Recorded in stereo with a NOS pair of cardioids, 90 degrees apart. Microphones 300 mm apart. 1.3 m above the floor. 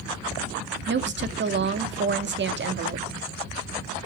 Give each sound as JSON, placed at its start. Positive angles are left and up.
{"t": 0.9, "sound": "a woman speaking", "azimuth_deg": -35, "distance_m": 2.0}